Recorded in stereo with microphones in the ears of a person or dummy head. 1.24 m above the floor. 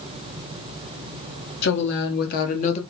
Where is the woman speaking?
55° left (ahead or behind), 1.5 m; by 2.8 s 30° left (ahead or behind), 0.7 m.